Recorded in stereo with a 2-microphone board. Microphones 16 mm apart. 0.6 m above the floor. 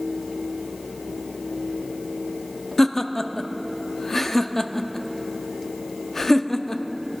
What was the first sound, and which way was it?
Laughter, 25° left (ahead or behind).